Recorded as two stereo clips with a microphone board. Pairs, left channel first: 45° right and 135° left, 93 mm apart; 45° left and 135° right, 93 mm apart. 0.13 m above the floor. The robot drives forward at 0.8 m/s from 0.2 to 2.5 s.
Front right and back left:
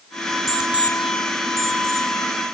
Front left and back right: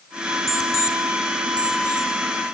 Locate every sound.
0.5 s an alarm clock: 145° right, 0.7 m; by 2.1 s 170° right, 1.8 m